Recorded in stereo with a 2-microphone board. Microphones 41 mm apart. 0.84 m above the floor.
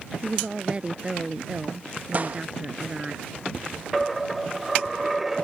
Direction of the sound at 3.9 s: Centre (ahead or behind).